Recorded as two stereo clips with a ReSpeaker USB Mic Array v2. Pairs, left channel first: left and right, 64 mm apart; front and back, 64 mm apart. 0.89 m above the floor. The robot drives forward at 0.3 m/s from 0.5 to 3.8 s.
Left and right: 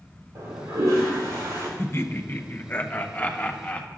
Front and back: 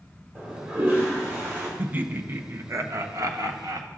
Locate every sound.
0.3 s a toilet flushing: 120° right, 2.5 m; by 1.7 s 130° right, 2.5 m
1.8 s laughter: 120° left, 0.6 m; by 3.9 s 155° left, 1.0 m